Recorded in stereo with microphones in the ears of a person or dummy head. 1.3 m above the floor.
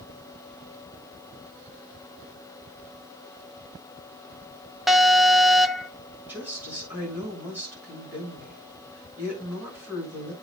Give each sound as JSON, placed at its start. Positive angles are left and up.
{"t": 4.9, "sound": "an alarm", "side_deg": 0, "distance_m": 0.5}
{"t": 6.3, "sound": "a woman speaking", "side_deg": -10, "distance_m": 7.5}